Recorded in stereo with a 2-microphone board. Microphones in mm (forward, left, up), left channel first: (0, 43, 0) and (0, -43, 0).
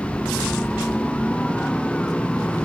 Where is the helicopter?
5° left (ahead or behind).